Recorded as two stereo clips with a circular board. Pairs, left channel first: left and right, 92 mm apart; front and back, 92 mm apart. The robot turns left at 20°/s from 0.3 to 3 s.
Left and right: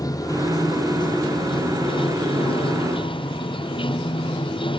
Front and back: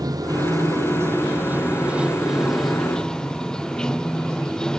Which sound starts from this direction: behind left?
Running water, at 0.0 s.